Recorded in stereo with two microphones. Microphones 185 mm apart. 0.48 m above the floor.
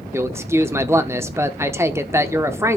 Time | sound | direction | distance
0.1 | a man speaking | 15° right (ahead or behind) | 0.7 m